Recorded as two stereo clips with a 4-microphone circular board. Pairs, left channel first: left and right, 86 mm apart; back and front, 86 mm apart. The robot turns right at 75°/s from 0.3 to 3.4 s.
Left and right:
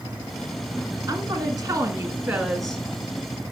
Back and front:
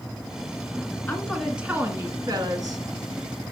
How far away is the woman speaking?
About 1.7 m.